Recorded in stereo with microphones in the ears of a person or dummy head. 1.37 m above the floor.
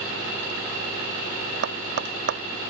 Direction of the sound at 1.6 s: 75° right (ahead or behind).